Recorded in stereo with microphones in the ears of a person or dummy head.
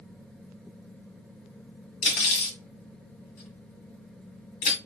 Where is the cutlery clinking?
40° left (ahead or behind), 1.5 m.